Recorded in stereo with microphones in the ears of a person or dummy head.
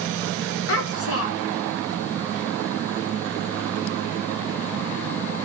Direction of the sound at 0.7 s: 60° left (ahead or behind).